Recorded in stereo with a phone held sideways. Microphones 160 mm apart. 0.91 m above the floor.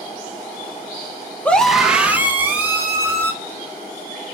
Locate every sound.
1.4 s a scream: 10° left (ahead or behind), 0.7 m; by 3.3 s 15° right (ahead or behind), 2.5 m